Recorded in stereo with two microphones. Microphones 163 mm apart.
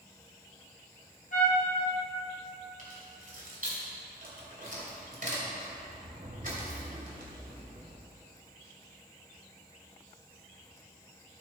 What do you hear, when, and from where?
1.3 s a trumpet: 55° left (ahead or behind), 3.5 m
2.8 s keys jangling: 55° right (ahead or behind), 2.5 m